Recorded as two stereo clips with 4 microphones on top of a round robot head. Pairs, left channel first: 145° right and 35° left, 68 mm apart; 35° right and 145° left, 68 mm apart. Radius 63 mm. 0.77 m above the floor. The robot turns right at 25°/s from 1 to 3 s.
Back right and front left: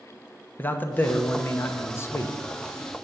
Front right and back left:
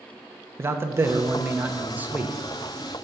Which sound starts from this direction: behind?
A man speaking, at 0.6 s.